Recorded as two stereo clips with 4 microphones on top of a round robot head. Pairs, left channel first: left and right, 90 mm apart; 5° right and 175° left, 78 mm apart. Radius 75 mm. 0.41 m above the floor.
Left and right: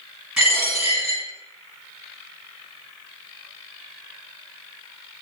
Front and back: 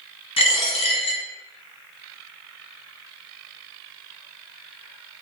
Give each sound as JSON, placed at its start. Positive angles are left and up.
{"t": 0.4, "sound": "a dropped coin", "azimuth_deg": -5, "distance_m": 1.5}